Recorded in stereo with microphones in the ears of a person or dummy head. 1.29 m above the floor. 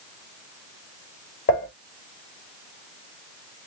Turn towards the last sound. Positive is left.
turn(degrees=35)  # may be behind; listen again after turning